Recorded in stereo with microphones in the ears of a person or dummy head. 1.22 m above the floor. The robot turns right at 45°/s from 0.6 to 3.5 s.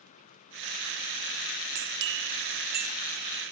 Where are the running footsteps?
No running footsteps in this recording.